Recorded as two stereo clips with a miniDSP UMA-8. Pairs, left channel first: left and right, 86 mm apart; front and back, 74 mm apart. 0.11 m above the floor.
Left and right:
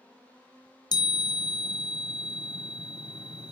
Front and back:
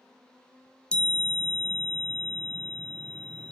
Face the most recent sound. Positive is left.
turn(degrees=70)